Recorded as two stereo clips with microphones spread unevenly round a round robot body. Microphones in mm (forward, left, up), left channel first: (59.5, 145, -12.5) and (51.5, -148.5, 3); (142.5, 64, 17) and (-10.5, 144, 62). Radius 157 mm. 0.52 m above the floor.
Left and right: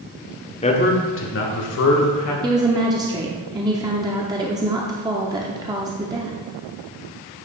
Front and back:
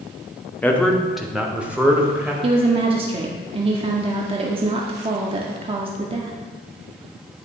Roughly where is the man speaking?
Ahead left.